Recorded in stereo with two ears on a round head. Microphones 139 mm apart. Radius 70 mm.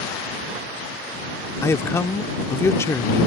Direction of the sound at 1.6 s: 20° left (ahead or behind).